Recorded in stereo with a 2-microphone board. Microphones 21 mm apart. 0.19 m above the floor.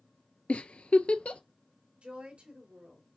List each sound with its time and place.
0.5 s a giggle: 70° left (ahead or behind), 0.5 m
2.0 s a woman speaking: 65° right (ahead or behind), 3.5 m